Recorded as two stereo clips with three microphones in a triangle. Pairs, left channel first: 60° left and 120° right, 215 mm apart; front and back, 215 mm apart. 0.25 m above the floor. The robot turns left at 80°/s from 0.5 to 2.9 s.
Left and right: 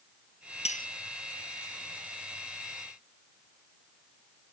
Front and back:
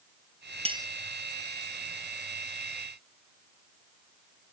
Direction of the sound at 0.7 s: 120° left.